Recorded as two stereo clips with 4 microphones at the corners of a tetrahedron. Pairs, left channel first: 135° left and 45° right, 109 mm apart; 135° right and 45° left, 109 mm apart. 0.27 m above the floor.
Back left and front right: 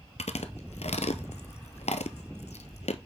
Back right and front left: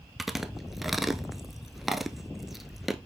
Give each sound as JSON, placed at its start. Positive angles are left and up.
{"t": 0.2, "sound": "chewing", "azimuth_deg": 135, "distance_m": 0.7}